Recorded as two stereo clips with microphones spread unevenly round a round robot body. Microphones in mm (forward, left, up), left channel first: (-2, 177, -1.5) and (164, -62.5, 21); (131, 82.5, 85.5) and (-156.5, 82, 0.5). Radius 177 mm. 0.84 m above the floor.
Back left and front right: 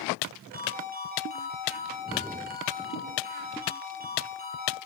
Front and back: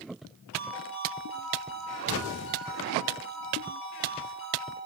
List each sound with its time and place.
0.5 s a ringtone: 5° left, 9 m